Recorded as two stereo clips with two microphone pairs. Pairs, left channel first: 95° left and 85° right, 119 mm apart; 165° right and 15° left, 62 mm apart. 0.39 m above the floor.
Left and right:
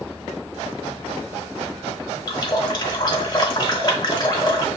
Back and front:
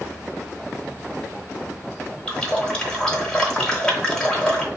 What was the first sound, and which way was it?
A running tap, 125° left.